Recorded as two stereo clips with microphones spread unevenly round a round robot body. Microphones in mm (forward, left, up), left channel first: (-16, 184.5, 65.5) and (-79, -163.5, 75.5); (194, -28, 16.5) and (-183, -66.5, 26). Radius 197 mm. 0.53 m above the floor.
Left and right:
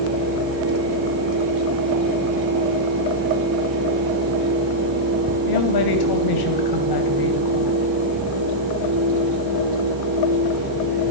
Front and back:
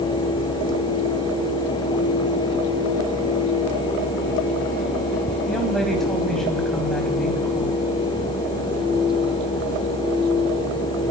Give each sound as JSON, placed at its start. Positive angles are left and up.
{"t": 5.5, "sound": "a woman speaking", "azimuth_deg": 95, "distance_m": 2.5}